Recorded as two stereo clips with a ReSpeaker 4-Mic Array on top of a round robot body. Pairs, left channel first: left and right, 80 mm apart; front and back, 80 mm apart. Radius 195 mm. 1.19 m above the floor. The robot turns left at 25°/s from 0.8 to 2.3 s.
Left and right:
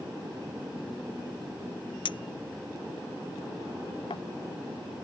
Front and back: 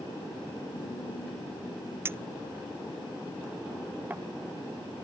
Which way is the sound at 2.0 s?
120° left.